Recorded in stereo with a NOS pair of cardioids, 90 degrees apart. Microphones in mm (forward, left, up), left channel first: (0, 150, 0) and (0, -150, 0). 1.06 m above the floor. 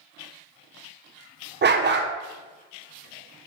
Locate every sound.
1.6 s a dog barking: 35° right, 1.4 m